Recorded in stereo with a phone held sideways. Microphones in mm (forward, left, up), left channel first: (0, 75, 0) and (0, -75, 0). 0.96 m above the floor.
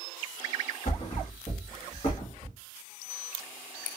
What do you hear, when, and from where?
0.8 s a thud: 40° left (ahead or behind), 1.3 m